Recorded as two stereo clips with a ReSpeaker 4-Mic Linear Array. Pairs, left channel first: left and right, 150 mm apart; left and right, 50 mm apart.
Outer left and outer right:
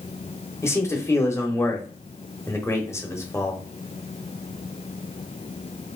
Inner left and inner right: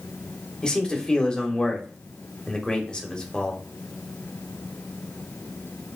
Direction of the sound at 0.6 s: 20° left (ahead or behind).